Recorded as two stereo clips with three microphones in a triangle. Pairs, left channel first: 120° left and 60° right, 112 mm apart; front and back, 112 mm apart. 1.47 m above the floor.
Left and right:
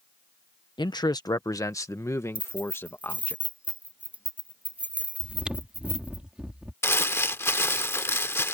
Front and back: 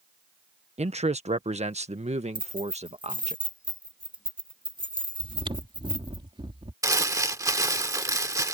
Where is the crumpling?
165° left.